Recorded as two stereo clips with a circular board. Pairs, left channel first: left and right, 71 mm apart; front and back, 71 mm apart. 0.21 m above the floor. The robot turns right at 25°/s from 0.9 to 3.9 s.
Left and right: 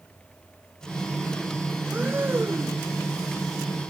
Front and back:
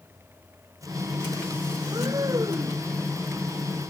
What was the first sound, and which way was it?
Breathing, 155° right.